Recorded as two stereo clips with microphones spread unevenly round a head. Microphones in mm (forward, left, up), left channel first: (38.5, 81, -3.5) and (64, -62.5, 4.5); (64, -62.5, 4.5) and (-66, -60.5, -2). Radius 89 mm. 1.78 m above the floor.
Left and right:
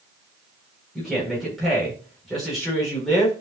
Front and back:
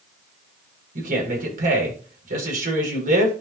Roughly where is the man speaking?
Behind.